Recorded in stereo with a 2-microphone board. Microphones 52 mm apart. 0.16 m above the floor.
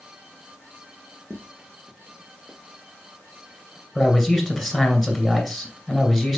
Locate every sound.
1.3 s footsteps: 45° right (ahead or behind), 2.0 m; by 2.6 s 30° right (ahead or behind), 2 m
4.0 s a man speaking: centre (ahead or behind), 2 m